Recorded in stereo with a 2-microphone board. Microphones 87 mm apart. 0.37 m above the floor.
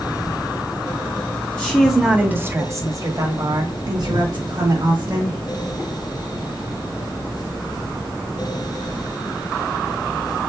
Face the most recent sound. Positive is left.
turn(degrees=-55)  # may be behind; listen again after turning